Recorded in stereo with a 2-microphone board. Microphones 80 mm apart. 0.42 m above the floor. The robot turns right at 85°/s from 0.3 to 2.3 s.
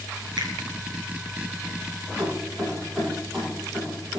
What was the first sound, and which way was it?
A finger snap, 70° right (ahead or behind).